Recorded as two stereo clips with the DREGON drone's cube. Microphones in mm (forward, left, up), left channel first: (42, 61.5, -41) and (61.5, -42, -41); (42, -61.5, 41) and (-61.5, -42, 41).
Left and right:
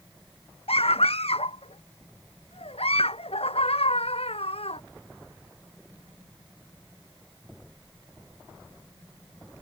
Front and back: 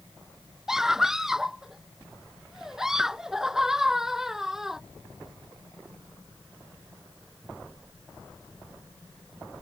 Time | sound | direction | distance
0.7 | a scream | 85° left | ?